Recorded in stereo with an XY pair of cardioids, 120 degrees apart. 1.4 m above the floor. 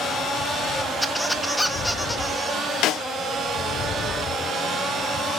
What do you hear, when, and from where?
1.0 s a squeak: 5° left, 1.2 m
2.8 s a snare drum: 70° left, 1.0 m